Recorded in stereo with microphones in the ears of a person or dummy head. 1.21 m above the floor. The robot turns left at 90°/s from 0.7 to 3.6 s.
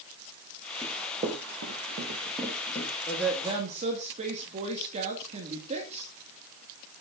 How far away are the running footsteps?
About 2.5 m.